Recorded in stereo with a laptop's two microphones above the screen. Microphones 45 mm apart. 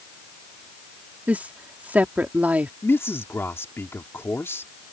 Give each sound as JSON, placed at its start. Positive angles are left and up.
{"t": 1.3, "sound": "a woman speaking", "side_deg": -40}
{"t": 2.8, "sound": "a man speaking", "side_deg": 70}